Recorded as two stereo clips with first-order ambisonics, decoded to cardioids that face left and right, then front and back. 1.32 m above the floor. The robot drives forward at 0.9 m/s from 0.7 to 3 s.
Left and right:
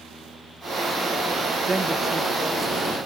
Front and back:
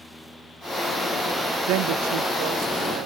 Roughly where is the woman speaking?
Behind.